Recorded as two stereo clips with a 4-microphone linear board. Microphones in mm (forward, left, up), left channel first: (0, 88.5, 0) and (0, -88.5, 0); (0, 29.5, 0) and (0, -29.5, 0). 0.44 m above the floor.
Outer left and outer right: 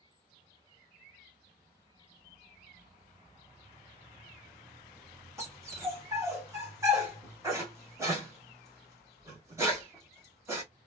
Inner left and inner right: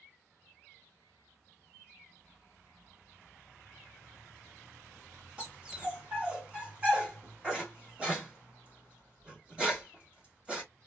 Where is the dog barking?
15° right (ahead or behind), 2 m.